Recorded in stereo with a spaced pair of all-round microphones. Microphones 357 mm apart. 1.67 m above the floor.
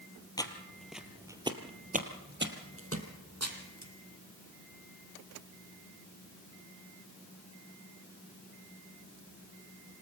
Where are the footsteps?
10° left (ahead or behind), 1.8 m; by 3.9 s 50° right (ahead or behind), 2.5 m.